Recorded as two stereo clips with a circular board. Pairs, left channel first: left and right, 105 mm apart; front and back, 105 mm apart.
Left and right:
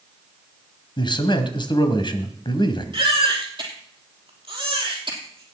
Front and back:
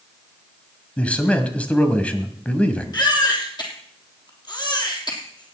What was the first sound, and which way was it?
A man speaking, 75° left.